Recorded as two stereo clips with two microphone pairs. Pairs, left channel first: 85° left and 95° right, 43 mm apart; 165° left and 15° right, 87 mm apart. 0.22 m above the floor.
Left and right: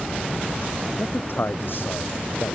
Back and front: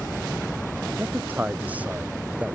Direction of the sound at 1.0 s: 55° left.